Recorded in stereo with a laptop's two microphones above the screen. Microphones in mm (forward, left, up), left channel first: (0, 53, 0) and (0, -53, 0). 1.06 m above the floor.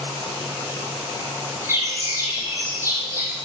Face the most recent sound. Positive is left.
turn(degrees=-25)  # may be behind; listen again after turning